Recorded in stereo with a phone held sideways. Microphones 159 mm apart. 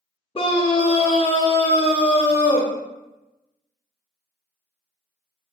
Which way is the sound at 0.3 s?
35° left (ahead or behind).